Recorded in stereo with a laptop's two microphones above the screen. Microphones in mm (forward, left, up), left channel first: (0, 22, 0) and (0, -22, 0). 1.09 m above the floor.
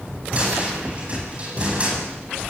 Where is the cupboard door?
30° right (ahead or behind), 9.5 m.